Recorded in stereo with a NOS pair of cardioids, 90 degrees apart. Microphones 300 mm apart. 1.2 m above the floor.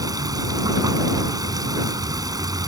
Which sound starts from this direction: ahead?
Running water, at 0.0 s.